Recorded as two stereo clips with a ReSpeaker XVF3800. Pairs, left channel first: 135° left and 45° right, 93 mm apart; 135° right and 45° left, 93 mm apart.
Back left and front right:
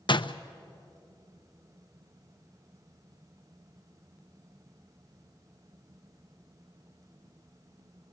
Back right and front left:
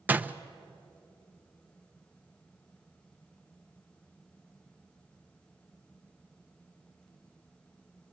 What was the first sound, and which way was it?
A door slam, 115° left.